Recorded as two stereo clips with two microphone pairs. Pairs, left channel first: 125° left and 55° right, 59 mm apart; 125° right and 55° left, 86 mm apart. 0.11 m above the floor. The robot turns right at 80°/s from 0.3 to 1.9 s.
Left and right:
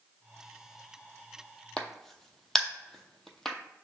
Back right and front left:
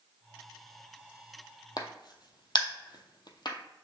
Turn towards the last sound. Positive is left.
turn(degrees=-150)